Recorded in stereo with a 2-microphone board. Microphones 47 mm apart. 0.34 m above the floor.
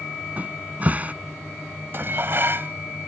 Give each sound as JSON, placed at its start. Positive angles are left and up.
{"t": 0.4, "sound": "a cupboard door", "side_deg": -35}
{"t": 1.9, "sound": "dishes clattering", "side_deg": -55}